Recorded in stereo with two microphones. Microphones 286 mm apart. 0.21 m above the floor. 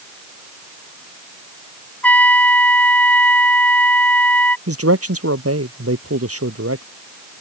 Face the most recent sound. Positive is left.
turn(degrees=-55)  # may be behind; listen again after turning